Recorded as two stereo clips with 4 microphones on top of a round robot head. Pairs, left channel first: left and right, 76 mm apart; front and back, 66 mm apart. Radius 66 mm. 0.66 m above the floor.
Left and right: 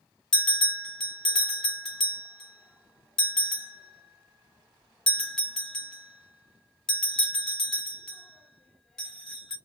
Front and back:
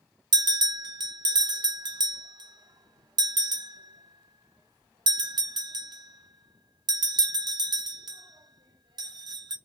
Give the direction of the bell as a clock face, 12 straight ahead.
6 o'clock.